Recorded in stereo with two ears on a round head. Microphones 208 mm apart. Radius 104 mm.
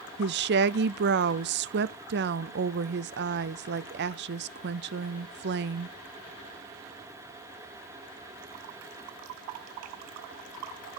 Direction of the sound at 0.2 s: 45° right (ahead or behind).